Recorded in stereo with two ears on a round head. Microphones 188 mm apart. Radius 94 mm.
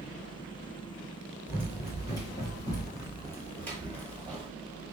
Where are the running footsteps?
20° left (ahead or behind), 1.5 m; by 4.5 s 5° left (ahead or behind), 1.6 m.